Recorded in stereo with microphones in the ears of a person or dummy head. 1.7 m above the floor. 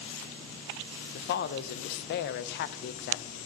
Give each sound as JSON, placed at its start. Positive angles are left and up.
{"t": 1.1, "sound": "a woman speaking", "side_deg": 55, "distance_m": 0.6}